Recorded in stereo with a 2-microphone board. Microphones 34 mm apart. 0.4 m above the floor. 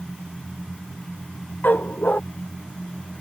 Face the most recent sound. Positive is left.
turn(degrees=55)  # may be behind; listen again after turning